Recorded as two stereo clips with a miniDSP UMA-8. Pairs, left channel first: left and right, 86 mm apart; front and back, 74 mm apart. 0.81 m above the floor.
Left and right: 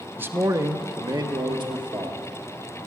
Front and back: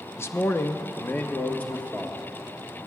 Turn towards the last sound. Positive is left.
turn(degrees=-70)